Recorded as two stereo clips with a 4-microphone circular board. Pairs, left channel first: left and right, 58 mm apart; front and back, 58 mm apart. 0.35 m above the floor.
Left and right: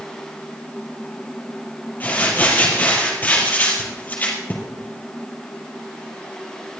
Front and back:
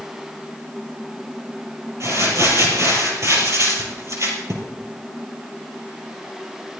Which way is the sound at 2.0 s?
150° left.